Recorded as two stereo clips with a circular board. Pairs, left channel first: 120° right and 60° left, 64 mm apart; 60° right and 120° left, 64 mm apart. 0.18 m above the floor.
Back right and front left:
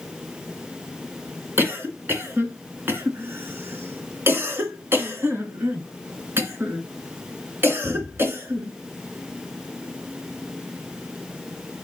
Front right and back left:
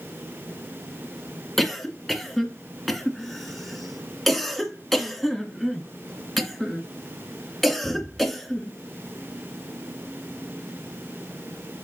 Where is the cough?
25° left, 2 m.